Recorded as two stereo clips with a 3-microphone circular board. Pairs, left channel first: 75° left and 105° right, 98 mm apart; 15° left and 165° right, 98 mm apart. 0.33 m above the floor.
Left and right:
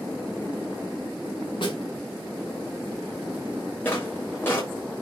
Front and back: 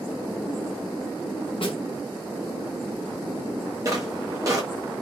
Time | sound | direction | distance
1.6 | a snare drum | 40° left | 0.8 m
3.9 | footsteps | 140° left | 0.8 m